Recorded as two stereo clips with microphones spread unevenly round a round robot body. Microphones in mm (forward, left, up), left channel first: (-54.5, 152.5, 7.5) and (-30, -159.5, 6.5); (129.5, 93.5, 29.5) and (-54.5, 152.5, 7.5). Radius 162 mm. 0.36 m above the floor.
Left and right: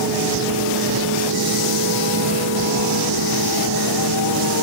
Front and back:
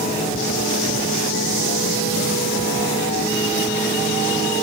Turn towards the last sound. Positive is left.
No sound to turn to.